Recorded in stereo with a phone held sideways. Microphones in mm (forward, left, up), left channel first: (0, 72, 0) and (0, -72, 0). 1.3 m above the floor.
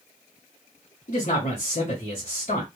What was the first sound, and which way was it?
A man speaking, 55° left (ahead or behind).